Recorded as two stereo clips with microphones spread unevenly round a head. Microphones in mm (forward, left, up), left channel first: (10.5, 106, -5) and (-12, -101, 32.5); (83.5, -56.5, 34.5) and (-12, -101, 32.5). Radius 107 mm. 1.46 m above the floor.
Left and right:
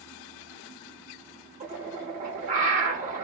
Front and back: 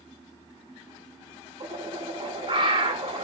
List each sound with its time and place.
1.6 s a bird: 125° right, 0.8 m